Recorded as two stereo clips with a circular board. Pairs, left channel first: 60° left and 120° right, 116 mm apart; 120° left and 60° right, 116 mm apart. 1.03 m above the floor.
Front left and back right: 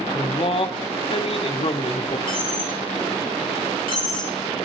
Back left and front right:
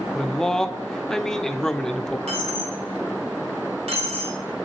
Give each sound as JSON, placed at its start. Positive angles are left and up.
{"t": 0.1, "sound": "a man speaking", "azimuth_deg": 35, "distance_m": 0.8}
{"t": 2.3, "sound": "a dropped coin", "azimuth_deg": -85, "distance_m": 3.0}